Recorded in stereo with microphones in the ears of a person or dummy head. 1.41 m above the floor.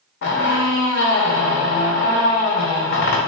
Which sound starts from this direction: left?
A squeak, at 0.2 s.